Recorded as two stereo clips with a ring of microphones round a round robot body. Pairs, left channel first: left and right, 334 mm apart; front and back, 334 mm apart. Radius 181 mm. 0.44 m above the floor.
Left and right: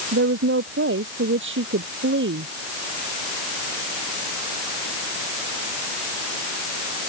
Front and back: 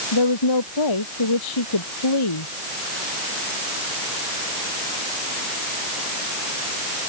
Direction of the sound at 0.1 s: 35° right.